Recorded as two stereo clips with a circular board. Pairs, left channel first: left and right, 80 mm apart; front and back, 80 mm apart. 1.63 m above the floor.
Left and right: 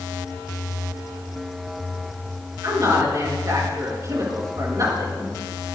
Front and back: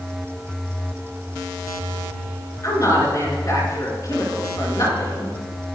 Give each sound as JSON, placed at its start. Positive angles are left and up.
{"t": 2.6, "sound": "a woman speaking", "azimuth_deg": -45, "distance_m": 7.0}